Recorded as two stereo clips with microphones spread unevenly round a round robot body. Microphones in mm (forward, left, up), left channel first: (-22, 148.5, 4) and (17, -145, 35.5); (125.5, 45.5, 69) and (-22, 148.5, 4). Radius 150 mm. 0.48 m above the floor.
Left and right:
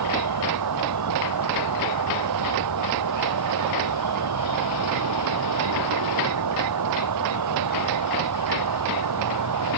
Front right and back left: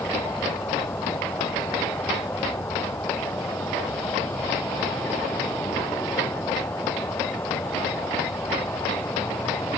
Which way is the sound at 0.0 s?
120° right.